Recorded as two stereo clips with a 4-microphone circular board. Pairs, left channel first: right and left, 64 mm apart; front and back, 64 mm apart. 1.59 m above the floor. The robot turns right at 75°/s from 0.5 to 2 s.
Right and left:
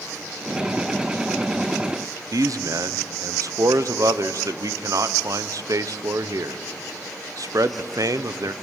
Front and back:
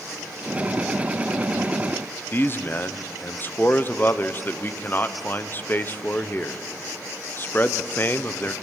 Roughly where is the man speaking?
Ahead left.